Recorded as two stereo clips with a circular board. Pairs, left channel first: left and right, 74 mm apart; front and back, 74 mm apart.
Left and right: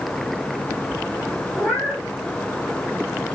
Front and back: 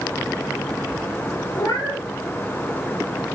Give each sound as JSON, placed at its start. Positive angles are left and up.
{"t": 1.6, "sound": "a cat meowing", "azimuth_deg": 15, "distance_m": 3.0}